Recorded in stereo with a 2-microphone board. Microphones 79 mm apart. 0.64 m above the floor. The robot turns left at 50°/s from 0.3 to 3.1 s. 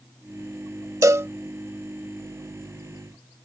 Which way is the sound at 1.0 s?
40° right (ahead or behind).